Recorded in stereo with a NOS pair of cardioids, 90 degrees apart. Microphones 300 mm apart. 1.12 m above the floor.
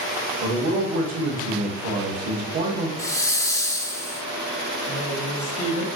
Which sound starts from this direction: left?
A woman speaking, at 4.9 s.